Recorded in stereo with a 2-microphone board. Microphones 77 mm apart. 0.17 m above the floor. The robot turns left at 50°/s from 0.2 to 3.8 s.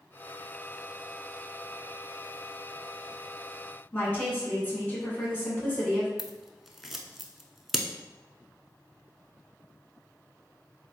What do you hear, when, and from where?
3.9 s a woman speaking: 20° left (ahead or behind), 1.7 m
6.2 s scissors: 5° right (ahead or behind), 0.5 m